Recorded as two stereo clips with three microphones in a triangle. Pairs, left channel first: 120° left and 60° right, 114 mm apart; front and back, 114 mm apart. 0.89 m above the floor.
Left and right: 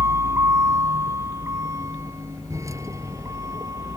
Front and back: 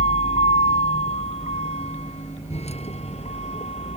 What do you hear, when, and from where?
0.0 s a vehicle: 5° left; by 4.0 s straight ahead